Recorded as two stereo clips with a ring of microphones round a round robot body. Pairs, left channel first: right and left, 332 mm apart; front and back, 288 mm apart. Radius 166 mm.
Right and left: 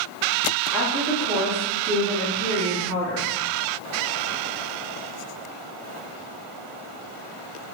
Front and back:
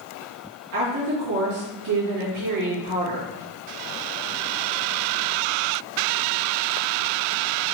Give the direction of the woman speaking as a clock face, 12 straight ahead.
6 o'clock.